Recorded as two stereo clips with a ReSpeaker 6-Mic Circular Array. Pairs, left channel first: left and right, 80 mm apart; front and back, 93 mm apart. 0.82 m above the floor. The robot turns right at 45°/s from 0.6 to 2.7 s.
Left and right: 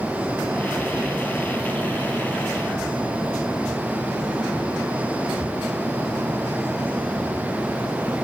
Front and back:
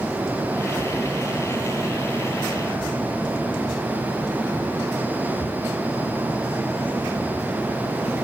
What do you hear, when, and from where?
Only background noise.